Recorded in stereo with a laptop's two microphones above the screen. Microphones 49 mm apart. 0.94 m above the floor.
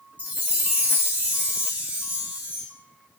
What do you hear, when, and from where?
0.2 s a chime: 30° right (ahead or behind), 0.9 m